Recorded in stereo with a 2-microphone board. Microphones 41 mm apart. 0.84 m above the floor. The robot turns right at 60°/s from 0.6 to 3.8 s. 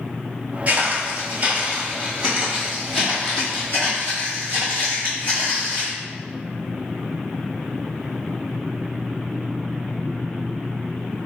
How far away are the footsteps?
About 1.0 m.